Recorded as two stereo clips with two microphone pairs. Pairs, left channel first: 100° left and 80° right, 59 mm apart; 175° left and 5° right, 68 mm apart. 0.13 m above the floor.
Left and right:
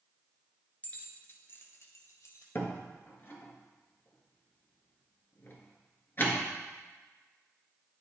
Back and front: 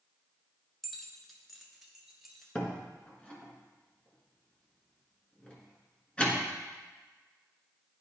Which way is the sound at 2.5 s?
115° left.